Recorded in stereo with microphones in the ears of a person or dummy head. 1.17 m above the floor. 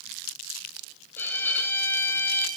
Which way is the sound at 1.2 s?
10° left (ahead or behind).